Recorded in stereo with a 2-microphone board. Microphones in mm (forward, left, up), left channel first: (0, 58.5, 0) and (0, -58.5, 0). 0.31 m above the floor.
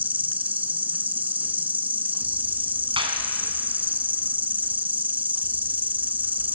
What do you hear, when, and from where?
0.0 s an insect: 15° right (ahead or behind), 0.7 m
3.0 s a clap: 50° right (ahead or behind), 3 m